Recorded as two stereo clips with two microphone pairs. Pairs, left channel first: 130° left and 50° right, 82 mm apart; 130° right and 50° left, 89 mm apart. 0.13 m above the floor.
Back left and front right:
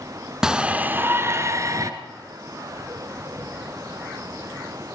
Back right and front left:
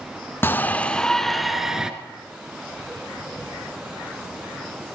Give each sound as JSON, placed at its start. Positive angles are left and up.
{"t": 0.4, "sound": "a shout", "azimuth_deg": -120, "distance_m": 1.1}